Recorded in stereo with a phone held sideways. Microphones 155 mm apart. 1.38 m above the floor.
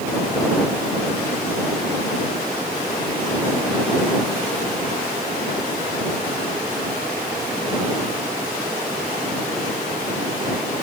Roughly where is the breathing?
No breathing in this recording.